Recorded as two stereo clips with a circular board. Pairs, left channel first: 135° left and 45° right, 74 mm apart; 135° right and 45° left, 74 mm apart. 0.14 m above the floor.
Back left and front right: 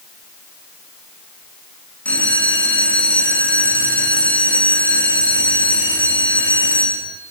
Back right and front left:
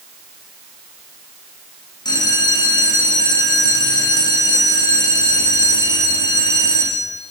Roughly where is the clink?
No clink in this recording.